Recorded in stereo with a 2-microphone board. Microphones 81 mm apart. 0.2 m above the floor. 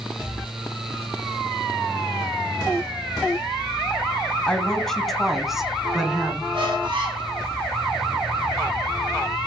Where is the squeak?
90° right, 5.5 m.